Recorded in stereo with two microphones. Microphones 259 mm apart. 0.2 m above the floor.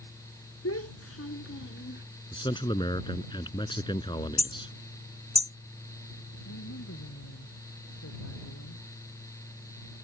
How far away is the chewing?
I don't hear chewing.